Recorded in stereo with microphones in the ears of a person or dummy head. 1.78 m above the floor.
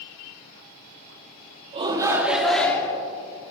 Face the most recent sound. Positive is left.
turn(degrees=20)  # may be behind; listen again after turning